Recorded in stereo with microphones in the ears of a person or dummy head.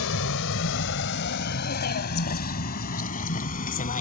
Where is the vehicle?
75° left (ahead or behind); by 4.0 s 40° left (ahead or behind).